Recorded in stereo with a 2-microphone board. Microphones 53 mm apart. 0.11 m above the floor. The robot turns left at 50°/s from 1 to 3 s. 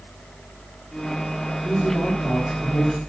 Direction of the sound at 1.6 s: Straight behind.